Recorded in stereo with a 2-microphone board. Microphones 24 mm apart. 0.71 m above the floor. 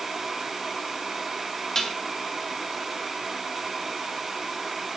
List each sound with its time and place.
1.8 s dishes clattering: 20° left (ahead or behind), 3 m